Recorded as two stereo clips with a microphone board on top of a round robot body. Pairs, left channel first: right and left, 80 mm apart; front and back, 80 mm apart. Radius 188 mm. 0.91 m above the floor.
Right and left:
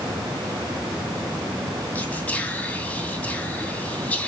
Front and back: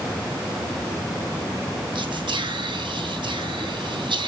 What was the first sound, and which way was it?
Whispering, 160° right.